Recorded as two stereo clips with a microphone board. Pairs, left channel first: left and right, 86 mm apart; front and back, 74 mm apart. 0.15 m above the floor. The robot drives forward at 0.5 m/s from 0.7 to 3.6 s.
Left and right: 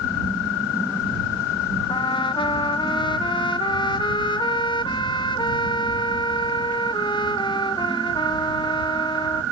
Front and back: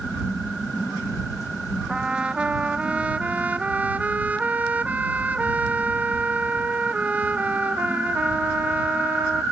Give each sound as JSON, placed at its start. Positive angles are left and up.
{"t": 1.9, "sound": "a trumpet", "azimuth_deg": 105}